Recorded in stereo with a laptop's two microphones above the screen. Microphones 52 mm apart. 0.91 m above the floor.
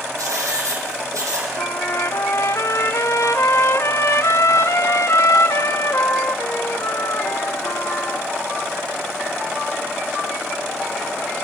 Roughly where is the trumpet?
Left.